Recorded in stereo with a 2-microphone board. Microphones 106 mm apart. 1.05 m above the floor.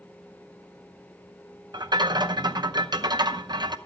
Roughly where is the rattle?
Right.